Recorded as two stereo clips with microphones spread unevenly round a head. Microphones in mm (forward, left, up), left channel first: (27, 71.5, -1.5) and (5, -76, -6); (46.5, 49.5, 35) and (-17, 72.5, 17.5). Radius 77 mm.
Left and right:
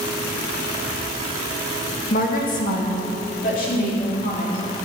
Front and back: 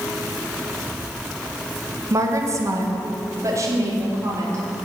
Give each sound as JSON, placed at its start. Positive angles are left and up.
{"t": 2.1, "sound": "a woman speaking", "azimuth_deg": 120, "distance_m": 1.5}